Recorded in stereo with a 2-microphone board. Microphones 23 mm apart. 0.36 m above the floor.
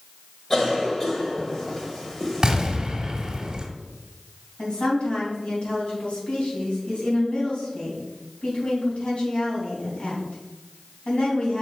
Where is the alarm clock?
I don't hear an alarm clock.